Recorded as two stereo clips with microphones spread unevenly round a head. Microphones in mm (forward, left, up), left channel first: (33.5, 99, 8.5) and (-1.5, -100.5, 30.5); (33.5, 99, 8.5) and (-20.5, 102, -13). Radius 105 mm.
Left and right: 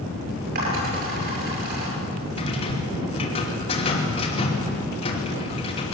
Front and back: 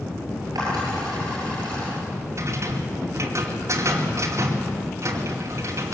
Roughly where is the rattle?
Behind left.